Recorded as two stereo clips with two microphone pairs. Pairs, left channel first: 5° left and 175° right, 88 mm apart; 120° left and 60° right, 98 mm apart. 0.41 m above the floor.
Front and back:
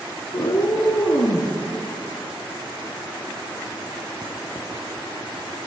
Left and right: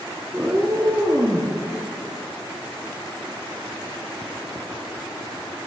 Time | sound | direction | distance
0.3 | a cat meowing | 15° left | 1.4 m